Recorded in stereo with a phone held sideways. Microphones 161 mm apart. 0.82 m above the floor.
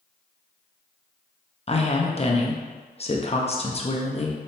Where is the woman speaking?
40° left (ahead or behind), 0.6 m.